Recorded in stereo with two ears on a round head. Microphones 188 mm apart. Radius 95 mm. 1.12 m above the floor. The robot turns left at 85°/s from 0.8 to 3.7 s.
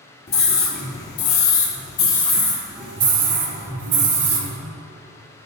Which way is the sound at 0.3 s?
130° left.